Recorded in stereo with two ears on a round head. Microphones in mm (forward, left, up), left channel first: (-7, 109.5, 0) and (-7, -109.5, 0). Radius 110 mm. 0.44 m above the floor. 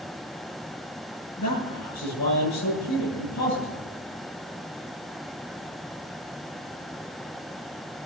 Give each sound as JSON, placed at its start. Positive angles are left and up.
{"t": 1.4, "sound": "a man speaking", "side_deg": 80, "distance_m": 8.5}